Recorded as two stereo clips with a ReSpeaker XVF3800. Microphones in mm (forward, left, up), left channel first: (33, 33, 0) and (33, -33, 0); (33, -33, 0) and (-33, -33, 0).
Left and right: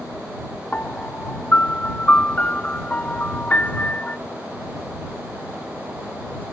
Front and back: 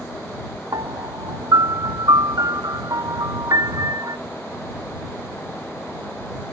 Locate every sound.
0.7 s a piano: 160° left